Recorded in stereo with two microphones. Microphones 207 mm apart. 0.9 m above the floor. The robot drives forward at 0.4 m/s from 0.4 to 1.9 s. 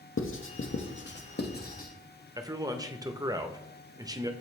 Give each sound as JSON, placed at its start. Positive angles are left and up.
{"t": 0.2, "sound": "writing", "side_deg": 75, "distance_m": 0.6}
{"t": 2.4, "sound": "a man speaking", "side_deg": -20, "distance_m": 0.6}